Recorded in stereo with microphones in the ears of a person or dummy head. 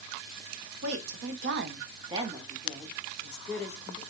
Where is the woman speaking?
75° right (ahead or behind), 0.8 m; by 4.0 s 10° left (ahead or behind), 1.7 m.